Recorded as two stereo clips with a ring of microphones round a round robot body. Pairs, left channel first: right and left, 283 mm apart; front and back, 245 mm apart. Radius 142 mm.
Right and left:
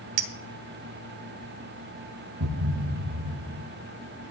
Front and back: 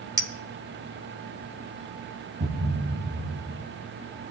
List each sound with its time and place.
0.2 s a clink: 105° left, 1.1 m
2.4 s a thud: 120° left, 1.1 m